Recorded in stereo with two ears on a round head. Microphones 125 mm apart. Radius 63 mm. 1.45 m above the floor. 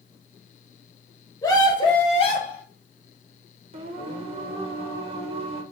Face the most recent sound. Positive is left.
turn(degrees=-45)  # may be behind; listen again after turning